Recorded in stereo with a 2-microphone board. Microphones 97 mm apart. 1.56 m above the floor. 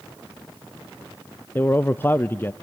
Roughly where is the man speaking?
Left.